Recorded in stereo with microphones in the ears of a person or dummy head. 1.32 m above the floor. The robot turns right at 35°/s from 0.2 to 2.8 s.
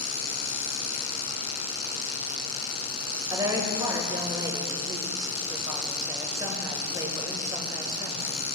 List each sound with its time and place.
3.3 s a woman speaking: 20° right (ahead or behind), 1.4 m